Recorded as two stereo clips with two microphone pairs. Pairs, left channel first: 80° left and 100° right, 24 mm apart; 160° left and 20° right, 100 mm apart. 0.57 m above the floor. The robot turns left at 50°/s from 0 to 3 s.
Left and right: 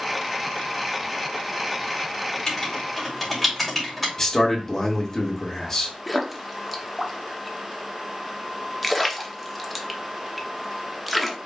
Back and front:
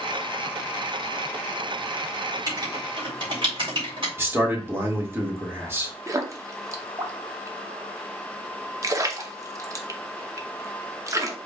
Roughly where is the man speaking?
Ahead left.